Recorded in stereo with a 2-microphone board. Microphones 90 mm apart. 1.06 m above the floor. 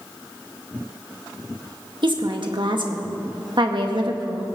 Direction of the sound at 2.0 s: 60° right (ahead or behind).